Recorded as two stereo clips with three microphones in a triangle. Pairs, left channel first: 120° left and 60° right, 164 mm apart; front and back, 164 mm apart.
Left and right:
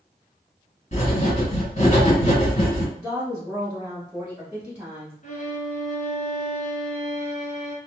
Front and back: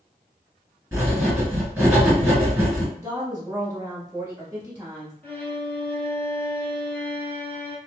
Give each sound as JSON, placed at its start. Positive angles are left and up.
{"t": 0.9, "sound": "writing", "azimuth_deg": 110, "distance_m": 1.8}
{"t": 3.0, "sound": "a woman speaking", "azimuth_deg": -125, "distance_m": 1.1}
{"t": 5.2, "sound": "a violin", "azimuth_deg": 80, "distance_m": 1.0}